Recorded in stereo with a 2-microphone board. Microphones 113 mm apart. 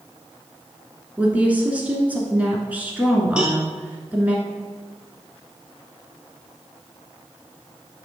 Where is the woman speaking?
10° right (ahead or behind), 1.2 m.